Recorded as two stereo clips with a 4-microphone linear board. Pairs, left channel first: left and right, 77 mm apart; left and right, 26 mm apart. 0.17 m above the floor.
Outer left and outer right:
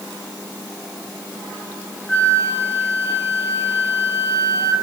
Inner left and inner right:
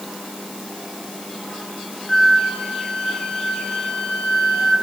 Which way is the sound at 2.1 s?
20° left (ahead or behind).